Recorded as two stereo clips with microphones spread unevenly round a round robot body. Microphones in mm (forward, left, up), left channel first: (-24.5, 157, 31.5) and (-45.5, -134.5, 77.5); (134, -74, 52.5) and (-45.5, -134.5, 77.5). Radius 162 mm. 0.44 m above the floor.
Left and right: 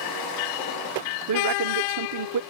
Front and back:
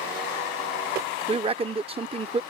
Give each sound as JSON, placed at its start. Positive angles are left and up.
{"t": 1.3, "sound": "a man speaking", "azimuth_deg": -100}